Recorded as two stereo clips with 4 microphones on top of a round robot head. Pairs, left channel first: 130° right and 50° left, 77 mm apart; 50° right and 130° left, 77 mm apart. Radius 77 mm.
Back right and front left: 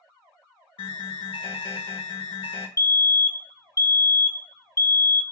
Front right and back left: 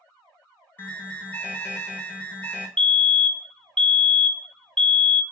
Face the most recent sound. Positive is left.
turn(degrees=-125)